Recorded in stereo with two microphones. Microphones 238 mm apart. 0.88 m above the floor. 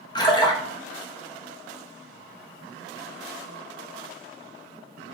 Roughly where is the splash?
Centre.